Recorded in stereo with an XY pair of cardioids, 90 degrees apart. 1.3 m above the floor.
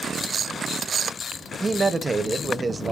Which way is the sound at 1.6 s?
30° right.